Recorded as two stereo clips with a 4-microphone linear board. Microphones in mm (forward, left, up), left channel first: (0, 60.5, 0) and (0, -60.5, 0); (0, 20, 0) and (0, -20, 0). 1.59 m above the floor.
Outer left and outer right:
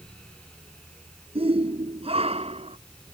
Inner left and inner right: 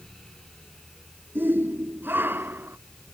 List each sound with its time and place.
1.4 s a shout: 50° right (ahead or behind); by 2.8 s 55° right (ahead or behind)